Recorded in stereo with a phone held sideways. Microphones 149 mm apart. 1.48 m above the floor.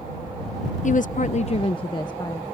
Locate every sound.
0.8 s a woman speaking: 55° left (ahead or behind); by 2.4 s 20° left (ahead or behind)